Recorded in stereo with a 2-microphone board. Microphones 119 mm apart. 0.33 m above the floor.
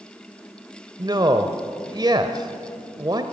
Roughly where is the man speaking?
Right.